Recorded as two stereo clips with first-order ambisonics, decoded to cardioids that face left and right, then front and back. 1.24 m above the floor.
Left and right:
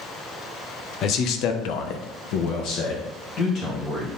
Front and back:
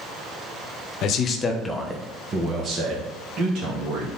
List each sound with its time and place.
1.0 s a man speaking: 40° left, 1.0 m; by 4.1 s 145° left, 2.5 m